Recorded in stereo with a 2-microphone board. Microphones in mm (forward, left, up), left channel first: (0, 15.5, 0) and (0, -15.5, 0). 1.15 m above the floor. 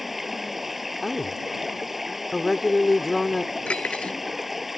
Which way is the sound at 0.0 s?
5° right (ahead or behind).